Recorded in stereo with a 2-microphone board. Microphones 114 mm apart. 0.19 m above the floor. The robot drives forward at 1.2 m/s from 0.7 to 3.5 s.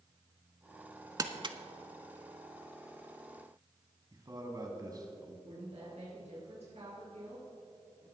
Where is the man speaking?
35° right (ahead or behind), 1.7 m.